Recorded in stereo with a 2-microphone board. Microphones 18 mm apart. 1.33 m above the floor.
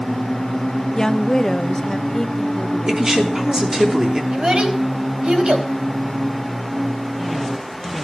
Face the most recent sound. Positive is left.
turn(degrees=-70)  # may be behind; listen again after turning